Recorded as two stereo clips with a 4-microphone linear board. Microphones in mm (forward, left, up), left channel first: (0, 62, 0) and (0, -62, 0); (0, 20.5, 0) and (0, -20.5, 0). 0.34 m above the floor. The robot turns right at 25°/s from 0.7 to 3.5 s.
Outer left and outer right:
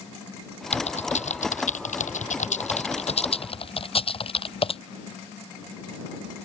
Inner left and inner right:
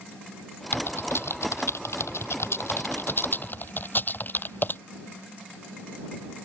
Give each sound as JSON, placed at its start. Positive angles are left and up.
{"t": 0.7, "sound": "typing on a keyboard", "side_deg": 60}